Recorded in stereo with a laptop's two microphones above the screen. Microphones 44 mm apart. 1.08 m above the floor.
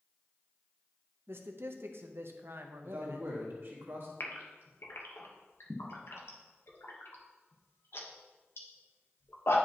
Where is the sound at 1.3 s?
65° right (ahead or behind), 0.8 m.